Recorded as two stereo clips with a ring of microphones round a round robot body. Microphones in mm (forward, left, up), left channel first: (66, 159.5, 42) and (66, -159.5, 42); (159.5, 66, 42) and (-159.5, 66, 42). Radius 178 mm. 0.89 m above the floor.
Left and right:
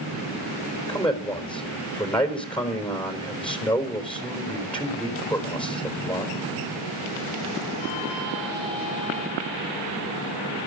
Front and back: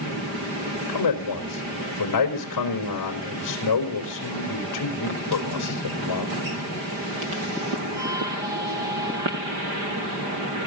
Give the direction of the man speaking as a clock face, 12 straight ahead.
12 o'clock.